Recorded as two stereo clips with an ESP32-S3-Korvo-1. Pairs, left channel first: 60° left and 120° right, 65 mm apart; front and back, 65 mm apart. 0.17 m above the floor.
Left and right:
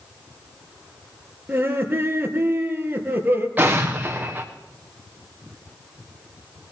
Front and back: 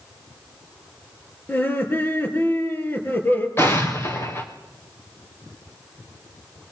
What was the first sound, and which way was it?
Laughter, 60° right.